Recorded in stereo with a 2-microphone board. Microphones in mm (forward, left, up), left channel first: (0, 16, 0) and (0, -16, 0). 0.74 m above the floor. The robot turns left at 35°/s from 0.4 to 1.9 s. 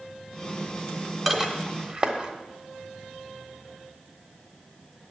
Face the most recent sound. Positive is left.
turn(degrees=-30)  # may be behind; listen again after turning